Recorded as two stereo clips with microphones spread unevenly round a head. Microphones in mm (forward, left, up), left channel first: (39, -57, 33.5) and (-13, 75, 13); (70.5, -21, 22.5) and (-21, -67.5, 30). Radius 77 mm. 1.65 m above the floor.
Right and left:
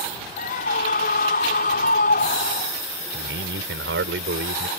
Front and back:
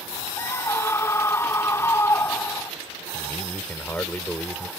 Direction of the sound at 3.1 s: 110° left.